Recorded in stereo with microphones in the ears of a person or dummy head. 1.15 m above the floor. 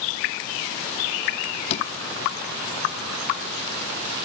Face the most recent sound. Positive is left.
turn(degrees=40)  # may be behind; listen again after turning